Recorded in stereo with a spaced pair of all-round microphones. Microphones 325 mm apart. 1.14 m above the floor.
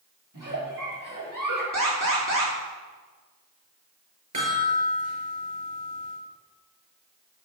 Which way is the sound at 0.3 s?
70° right (ahead or behind).